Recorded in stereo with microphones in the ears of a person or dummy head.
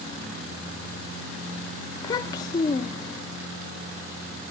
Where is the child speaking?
25° left (ahead or behind), 0.7 m.